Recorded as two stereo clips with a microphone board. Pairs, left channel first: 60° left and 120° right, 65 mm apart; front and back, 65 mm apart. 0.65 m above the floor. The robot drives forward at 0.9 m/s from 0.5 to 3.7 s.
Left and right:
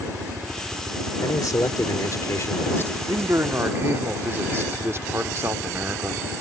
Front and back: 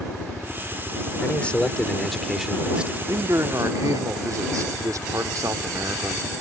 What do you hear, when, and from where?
0.0 s a helicopter: 90° right; by 6.4 s 110° right
1.2 s a man speaking: 60° left; by 3.0 s 110° left
3.1 s a man speaking: 155° right; by 6.4 s 165° right